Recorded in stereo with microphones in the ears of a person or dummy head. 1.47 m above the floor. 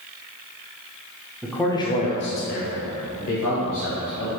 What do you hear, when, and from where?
1.4 s a man speaking: 5° right (ahead or behind), 0.6 m; by 4.3 s 80° left, 1.6 m